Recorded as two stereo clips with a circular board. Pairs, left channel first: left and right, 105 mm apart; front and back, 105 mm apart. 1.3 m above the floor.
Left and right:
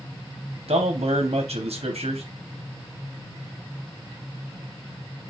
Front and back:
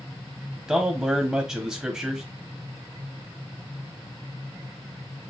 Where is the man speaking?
105° right, 0.8 m.